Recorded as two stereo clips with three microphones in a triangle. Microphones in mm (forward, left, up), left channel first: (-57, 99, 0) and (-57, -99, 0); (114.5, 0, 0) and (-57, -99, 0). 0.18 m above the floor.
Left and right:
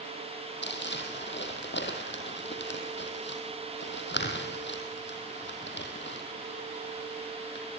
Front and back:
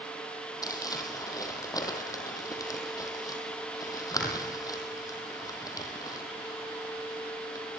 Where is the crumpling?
100° left, 4 m.